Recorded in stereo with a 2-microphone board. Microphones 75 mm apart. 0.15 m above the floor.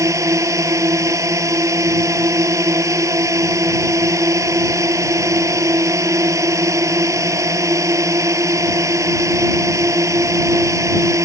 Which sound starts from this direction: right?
A drone, at 0.0 s.